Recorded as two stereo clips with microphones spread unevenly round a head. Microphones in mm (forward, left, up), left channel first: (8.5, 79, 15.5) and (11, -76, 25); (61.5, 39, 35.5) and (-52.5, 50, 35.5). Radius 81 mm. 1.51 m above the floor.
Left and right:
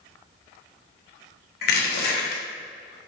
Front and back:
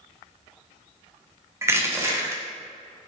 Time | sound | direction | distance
1.6 | crushing | 105° left | 0.7 m